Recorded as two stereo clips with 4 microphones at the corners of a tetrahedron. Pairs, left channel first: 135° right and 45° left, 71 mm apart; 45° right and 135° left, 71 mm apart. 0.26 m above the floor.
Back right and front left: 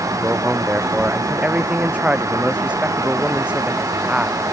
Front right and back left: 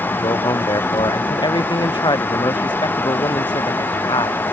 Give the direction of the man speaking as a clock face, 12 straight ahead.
1 o'clock.